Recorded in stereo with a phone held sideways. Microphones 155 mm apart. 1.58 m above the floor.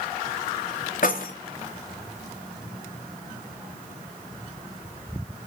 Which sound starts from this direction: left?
Keys jangling, at 1.0 s.